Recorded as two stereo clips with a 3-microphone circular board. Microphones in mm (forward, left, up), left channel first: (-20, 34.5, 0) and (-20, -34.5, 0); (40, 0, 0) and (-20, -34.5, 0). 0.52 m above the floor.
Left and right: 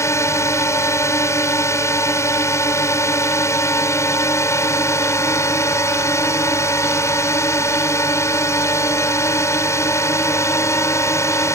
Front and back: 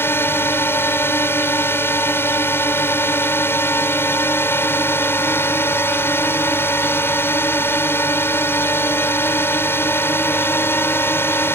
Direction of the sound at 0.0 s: 70° left.